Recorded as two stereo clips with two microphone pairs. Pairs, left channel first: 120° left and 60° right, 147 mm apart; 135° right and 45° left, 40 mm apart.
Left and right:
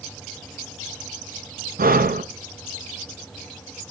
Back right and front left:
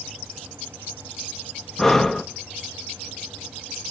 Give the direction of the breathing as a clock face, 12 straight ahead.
2 o'clock.